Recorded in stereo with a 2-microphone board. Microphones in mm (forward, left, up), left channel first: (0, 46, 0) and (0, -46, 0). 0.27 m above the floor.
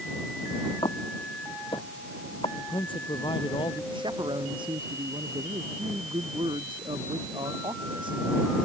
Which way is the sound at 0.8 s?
80° left.